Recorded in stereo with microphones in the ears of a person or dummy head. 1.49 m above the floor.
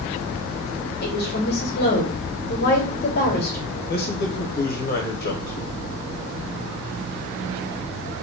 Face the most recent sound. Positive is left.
turn(degrees=50)  # may be behind; listen again after turning